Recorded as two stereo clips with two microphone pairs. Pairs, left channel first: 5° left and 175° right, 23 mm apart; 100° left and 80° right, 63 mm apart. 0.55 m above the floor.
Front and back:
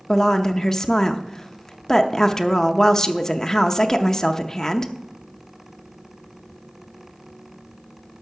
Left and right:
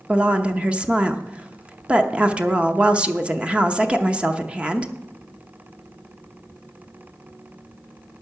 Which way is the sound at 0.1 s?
30° right.